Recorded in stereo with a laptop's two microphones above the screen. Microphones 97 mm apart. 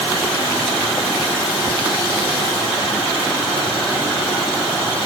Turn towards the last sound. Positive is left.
No sound to turn to.